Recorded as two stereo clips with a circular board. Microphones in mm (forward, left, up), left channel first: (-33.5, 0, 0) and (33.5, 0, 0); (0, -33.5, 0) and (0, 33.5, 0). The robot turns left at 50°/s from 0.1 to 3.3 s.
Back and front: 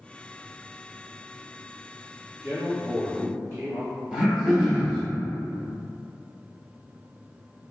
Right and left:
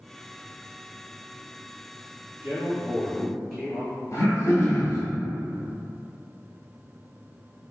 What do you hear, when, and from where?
2.4 s a man speaking: 45° left, 2.0 m; by 3.9 s 5° left, 2.0 m
4.1 s throat clearing: 75° right, 1.2 m